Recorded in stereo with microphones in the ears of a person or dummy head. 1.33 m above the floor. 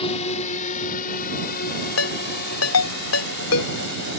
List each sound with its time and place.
0.0 s a drone: 35° left (ahead or behind); by 4.2 s 65° left (ahead or behind)
2.0 s a ringtone: 85° left